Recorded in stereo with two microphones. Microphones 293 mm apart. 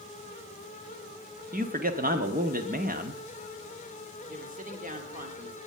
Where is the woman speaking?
25° right (ahead or behind), 2 m.